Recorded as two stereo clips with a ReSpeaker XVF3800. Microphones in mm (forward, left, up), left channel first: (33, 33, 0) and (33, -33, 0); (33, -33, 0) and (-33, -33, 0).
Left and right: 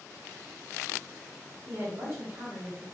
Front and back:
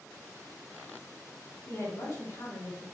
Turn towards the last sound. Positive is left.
turn(degrees=-35)